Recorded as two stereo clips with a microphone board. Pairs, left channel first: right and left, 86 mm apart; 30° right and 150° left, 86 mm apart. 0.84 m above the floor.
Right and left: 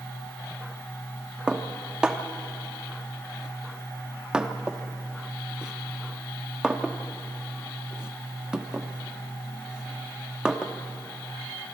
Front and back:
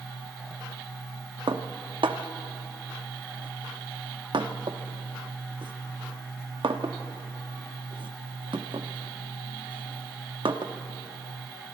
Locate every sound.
1.5 s dishes clattering: 170° left, 1.0 m